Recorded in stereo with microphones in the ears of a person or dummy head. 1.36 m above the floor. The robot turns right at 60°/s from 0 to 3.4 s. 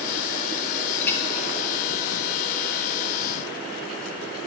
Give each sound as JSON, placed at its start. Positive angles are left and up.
{"t": 1.0, "sound": "a clink", "side_deg": 15, "distance_m": 1.9}